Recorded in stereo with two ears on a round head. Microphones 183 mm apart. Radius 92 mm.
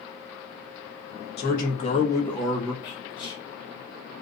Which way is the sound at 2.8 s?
25° left (ahead or behind).